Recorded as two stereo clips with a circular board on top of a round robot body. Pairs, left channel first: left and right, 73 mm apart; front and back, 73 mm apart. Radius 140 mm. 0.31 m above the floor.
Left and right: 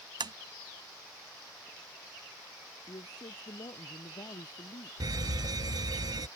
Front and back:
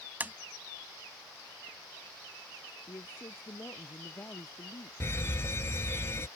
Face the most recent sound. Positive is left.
turn(degrees=-55)